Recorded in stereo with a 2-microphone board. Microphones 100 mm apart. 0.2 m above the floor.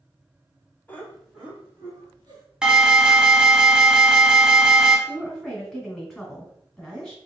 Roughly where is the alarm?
Centre.